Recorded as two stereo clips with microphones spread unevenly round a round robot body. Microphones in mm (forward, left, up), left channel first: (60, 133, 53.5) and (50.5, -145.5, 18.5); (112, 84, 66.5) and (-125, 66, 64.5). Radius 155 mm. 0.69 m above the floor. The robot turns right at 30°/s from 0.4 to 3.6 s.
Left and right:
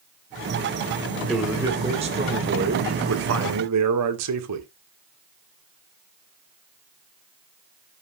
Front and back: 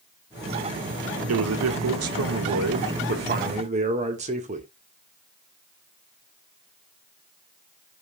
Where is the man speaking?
Straight behind, 1.8 m; by 4.7 s 110° right, 1.8 m.